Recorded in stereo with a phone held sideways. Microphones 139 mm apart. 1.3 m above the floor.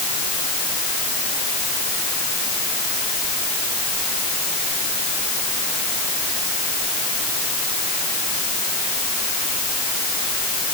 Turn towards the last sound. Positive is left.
No sound to turn to.